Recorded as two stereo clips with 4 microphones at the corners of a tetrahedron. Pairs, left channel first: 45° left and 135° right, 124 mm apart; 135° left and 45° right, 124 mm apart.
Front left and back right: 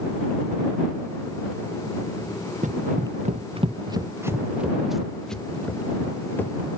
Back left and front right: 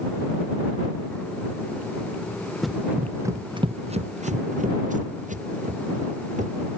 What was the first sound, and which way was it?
Running footsteps, 135° right.